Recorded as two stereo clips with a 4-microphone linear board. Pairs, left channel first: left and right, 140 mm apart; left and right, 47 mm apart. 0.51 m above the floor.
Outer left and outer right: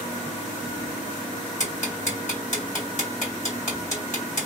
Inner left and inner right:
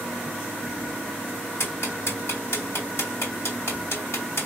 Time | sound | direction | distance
1.6 | ticking | 65° left (ahead or behind) | 3 m